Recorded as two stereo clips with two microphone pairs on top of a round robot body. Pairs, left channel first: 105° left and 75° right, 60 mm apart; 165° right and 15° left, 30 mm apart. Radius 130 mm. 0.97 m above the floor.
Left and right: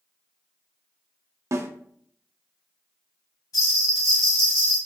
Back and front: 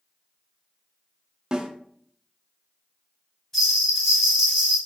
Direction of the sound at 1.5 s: 50° right.